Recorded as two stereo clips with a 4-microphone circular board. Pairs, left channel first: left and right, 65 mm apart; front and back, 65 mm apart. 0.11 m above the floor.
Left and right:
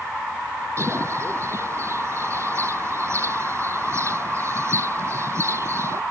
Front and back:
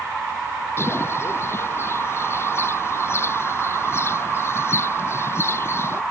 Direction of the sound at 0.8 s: 50° right.